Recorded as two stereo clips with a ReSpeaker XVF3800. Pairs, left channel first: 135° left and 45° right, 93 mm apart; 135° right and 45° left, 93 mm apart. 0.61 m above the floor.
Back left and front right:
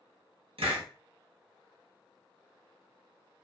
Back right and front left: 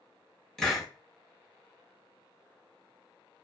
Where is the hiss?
50° right, 0.9 m.